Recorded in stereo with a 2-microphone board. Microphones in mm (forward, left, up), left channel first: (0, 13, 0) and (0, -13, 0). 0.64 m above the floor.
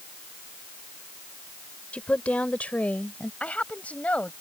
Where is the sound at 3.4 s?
75° left (ahead or behind).